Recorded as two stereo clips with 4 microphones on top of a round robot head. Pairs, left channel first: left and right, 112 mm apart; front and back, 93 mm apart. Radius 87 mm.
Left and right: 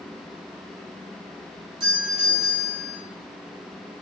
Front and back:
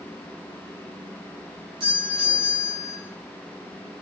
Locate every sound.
1.8 s a doorbell: 140° right, 9 m